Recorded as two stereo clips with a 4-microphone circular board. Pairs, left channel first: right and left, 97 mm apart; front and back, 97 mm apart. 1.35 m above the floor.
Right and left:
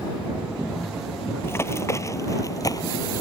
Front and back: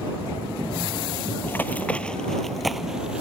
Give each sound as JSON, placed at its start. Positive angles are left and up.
{"t": 1.4, "sound": "running footsteps", "azimuth_deg": -45}